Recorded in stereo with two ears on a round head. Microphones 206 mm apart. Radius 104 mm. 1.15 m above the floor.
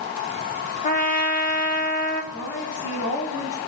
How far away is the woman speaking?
About 3.5 m.